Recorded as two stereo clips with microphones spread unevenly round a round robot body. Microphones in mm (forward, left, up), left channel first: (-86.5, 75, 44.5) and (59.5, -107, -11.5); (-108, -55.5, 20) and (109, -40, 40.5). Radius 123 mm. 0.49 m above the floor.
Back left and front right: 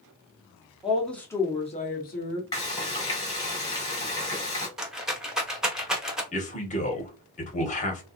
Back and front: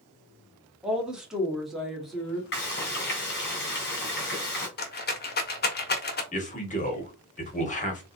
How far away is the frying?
About 1.8 m.